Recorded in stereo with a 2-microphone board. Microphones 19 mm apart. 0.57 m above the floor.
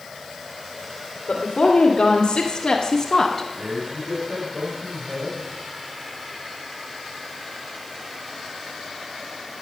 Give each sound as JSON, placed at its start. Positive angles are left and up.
{"t": 1.3, "sound": "a woman speaking", "side_deg": 60, "distance_m": 2.5}
{"t": 3.5, "sound": "a man speaking", "side_deg": -70, "distance_m": 4.0}